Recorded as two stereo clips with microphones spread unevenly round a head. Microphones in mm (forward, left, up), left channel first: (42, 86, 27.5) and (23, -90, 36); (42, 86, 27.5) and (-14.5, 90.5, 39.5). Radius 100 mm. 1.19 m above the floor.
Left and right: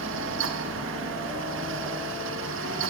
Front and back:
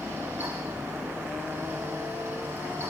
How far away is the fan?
About 1.8 m.